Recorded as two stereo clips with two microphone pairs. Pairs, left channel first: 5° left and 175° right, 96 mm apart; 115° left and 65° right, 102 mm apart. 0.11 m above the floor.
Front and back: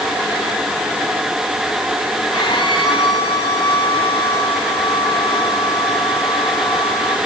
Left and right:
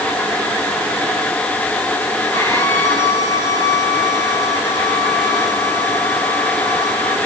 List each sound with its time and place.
2.3 s a violin: 50° left, 6 m